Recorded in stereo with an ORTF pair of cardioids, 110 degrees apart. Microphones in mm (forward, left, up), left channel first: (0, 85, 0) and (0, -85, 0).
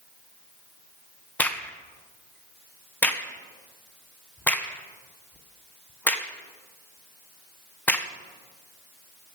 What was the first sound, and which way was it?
A crack, 10° left.